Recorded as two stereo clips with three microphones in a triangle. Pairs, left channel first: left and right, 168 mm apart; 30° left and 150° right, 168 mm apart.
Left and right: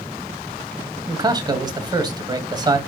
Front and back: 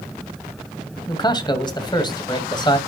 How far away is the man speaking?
About 1.8 m.